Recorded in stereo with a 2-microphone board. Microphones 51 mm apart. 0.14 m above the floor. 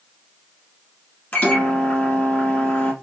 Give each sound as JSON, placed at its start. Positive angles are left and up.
{"t": 1.3, "sound": "a microwave", "side_deg": 30, "distance_m": 0.9}